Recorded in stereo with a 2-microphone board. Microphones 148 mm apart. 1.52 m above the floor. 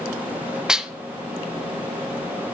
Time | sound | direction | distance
0.7 | dishes clattering | 5° right (ahead or behind) | 0.7 m